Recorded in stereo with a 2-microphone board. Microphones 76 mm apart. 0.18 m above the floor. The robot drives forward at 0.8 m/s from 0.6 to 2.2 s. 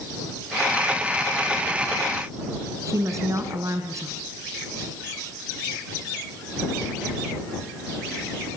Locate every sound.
2.9 s a woman speaking: 45° right (ahead or behind), 2.0 m